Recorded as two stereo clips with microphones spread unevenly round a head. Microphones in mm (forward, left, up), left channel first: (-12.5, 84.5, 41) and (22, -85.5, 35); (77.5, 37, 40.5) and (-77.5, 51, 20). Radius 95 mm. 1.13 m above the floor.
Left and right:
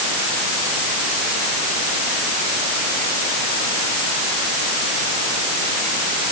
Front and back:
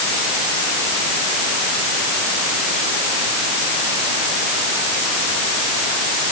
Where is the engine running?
I don't hear an engine running.